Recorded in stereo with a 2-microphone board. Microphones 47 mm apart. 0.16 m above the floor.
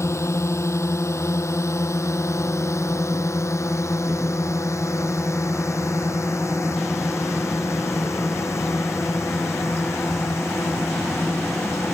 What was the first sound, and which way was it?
A drone, 75° left (ahead or behind).